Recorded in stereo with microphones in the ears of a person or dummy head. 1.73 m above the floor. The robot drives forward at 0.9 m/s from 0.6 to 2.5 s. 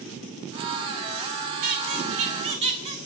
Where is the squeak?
45° right (ahead or behind), 1.9 m; by 3.0 s 35° right (ahead or behind), 2.5 m.